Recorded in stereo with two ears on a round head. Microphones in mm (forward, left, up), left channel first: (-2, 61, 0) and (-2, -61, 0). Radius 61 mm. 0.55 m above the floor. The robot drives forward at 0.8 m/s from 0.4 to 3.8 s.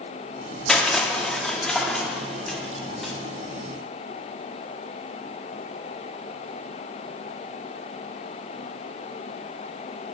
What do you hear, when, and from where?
0.7 s crushing: 5° left (ahead or behind), 1.0 m; by 3.1 s centre (ahead or behind), 1.9 m